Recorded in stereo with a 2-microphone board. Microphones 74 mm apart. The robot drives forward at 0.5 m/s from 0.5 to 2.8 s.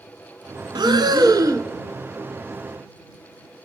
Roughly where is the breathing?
Right.